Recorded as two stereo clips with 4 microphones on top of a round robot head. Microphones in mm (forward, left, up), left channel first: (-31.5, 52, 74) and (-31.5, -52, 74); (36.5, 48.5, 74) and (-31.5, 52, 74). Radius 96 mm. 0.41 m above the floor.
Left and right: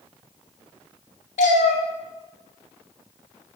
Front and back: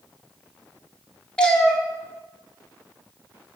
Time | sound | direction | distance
1.4 | a cat meowing | 75° left | 0.8 m